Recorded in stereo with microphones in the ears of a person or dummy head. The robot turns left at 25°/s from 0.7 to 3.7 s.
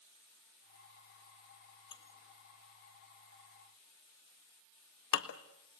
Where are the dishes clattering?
30° left (ahead or behind), 1.3 m; by 5.4 s 65° left (ahead or behind), 1.3 m.